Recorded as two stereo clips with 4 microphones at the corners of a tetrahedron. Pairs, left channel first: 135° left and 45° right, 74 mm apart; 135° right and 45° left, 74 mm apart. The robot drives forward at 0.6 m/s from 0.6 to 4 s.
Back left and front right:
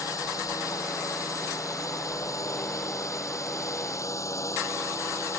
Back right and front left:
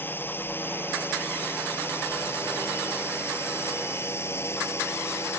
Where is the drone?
170° left; by 5.4 s 175° left.